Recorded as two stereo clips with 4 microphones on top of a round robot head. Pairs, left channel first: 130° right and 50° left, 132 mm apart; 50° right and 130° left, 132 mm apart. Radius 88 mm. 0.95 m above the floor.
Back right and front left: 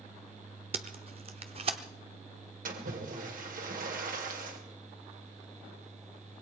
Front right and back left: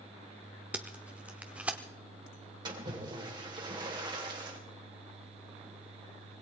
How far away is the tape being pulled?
About 0.6 m.